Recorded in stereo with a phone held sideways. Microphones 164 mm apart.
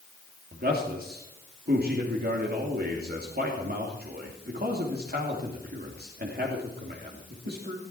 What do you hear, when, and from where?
0.5 s a man speaking: 65° right (ahead or behind), 3 m